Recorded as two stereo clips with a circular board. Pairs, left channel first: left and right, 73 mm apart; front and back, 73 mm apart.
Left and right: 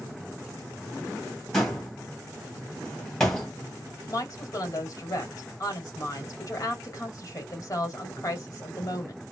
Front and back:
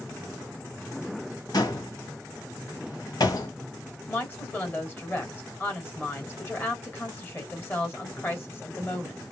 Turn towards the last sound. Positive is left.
turn(degrees=55)